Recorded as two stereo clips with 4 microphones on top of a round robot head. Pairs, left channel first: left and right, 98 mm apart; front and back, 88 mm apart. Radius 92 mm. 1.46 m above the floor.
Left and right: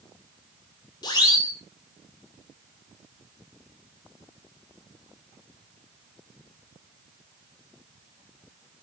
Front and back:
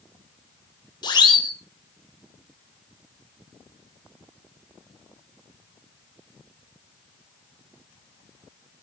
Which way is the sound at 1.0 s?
35° left.